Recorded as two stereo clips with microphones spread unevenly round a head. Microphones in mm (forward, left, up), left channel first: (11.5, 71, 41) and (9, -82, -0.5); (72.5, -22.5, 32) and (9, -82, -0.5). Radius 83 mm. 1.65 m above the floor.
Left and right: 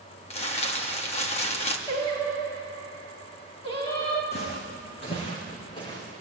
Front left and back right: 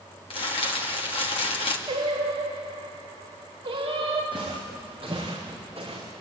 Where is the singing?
150° left, 4 m.